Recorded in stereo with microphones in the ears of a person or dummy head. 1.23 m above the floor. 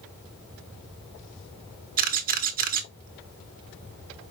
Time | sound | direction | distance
2.0 | a camera shutter | 40° right (ahead or behind) | 0.7 m